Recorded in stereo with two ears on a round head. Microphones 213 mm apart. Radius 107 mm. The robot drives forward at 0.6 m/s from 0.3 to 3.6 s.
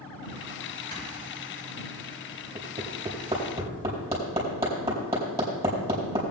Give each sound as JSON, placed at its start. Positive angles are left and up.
{"t": 0.9, "sound": "snoring", "side_deg": 20, "distance_m": 4.0}
{"t": 2.5, "sound": "hammering", "side_deg": -15, "distance_m": 4.0}